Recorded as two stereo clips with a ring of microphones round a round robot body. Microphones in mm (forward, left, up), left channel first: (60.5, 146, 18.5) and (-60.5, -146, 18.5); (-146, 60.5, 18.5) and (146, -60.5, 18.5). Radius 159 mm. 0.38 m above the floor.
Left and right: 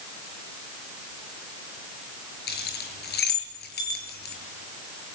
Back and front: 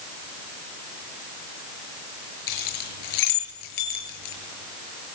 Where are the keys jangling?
130° left, 6 m.